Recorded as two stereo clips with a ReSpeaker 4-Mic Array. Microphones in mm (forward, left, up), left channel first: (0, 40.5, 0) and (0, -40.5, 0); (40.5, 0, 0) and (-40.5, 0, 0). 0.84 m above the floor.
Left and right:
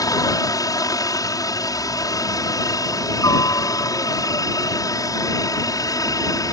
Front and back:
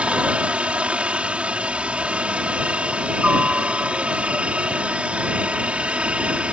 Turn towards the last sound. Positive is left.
turn(degrees=110)